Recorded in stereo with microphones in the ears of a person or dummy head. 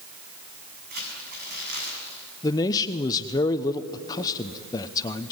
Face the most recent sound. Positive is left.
turn(degrees=20)  # may be behind; listen again after turning